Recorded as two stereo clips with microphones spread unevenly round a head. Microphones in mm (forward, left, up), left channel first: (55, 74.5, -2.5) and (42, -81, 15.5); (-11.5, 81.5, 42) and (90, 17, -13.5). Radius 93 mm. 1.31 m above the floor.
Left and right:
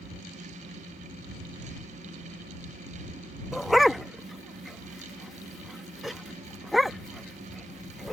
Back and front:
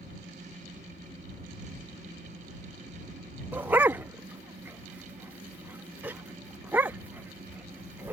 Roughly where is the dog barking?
Behind.